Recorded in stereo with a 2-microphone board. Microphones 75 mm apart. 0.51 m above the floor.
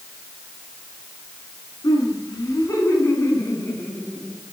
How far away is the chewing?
No chewing in this recording.